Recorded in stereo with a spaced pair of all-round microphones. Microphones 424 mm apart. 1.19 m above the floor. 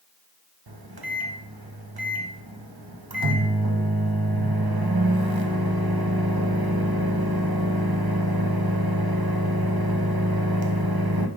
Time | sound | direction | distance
0.7 | a microwave | 60° right (ahead or behind) | 0.8 m